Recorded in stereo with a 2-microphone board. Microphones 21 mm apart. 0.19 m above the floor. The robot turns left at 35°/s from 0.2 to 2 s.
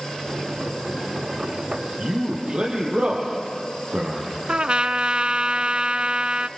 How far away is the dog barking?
No dog barking in this recording.